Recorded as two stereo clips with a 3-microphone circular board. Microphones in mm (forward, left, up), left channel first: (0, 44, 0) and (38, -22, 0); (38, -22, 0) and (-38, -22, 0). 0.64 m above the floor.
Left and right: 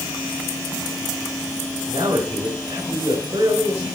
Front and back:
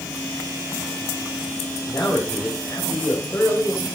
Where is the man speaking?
60° right, 2.5 m.